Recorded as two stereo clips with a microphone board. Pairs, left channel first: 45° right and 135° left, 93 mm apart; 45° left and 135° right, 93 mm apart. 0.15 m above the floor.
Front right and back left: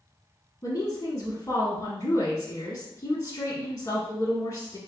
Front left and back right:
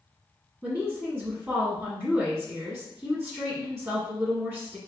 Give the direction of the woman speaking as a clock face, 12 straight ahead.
2 o'clock.